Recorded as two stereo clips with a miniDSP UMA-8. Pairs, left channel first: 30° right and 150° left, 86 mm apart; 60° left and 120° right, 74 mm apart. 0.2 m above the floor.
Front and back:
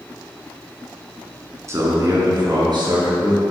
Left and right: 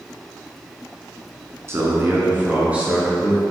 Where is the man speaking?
165° right, 1.8 m; by 3.4 s 160° left, 3 m.